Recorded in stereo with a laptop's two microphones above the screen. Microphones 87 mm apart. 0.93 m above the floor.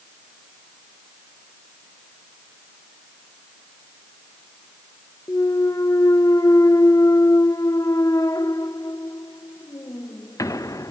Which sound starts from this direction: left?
A clunk, at 5.3 s.